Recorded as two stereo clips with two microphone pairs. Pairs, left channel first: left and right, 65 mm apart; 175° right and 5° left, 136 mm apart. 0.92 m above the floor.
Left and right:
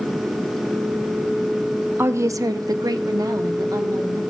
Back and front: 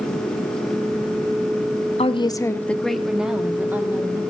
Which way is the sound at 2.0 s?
140° right.